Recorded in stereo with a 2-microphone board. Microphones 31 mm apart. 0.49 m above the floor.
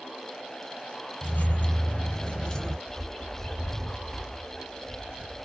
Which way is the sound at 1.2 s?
60° left (ahead or behind).